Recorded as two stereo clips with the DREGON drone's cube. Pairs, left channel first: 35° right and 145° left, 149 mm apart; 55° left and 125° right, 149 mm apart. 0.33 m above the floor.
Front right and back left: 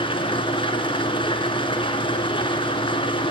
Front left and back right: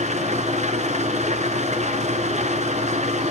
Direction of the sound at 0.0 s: 90° right.